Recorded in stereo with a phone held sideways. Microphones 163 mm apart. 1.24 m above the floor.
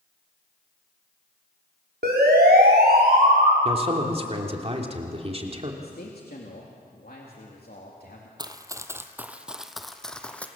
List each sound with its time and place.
2.0 s a siren: 80° right, 5 m; by 3.5 s 70° right (ahead or behind), 6.5 m
3.6 s a man speaking: 40° right (ahead or behind), 3 m
5.8 s a man speaking: 70° left (ahead or behind), 3 m
8.4 s running footsteps: 25° right (ahead or behind), 1.4 m; by 10.5 s 10° left (ahead or behind), 2.0 m